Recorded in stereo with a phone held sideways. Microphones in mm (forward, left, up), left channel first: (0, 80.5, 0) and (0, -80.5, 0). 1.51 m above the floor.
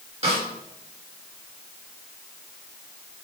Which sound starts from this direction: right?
A snare drum, at 0.2 s.